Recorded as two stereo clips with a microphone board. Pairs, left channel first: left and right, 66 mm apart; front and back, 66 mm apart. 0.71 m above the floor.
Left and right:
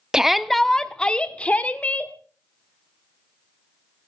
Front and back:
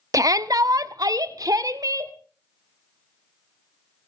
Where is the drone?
I don't hear a drone.